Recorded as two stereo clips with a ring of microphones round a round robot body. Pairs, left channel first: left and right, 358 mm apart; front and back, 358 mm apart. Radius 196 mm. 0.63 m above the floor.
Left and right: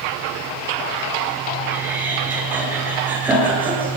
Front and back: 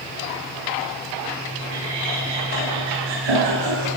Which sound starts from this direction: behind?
Laughter, at 1.7 s.